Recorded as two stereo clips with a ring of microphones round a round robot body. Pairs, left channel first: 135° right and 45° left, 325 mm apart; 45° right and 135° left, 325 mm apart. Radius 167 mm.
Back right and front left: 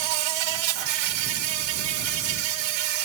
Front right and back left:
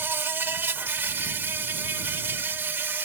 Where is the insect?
50° left.